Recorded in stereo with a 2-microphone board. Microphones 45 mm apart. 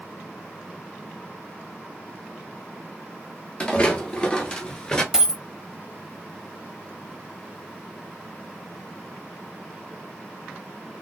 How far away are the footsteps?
About 1.5 m.